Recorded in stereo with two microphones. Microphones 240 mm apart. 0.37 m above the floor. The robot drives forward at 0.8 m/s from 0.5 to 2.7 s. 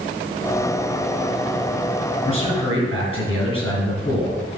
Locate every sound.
2.2 s a man speaking: 25° left (ahead or behind), 4.5 m